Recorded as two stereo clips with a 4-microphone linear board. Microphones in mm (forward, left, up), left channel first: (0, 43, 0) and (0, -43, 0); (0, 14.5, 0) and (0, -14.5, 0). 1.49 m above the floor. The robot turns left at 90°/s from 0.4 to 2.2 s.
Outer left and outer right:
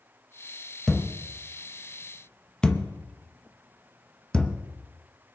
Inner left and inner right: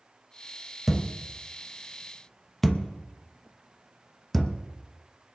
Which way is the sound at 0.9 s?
10° left (ahead or behind).